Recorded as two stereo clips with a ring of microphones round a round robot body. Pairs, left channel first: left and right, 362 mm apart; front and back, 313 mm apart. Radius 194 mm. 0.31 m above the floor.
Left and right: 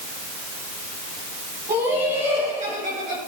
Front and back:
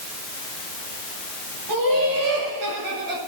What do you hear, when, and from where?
1.7 s laughter: 170° right, 5 m; by 3.2 s 155° right, 4.5 m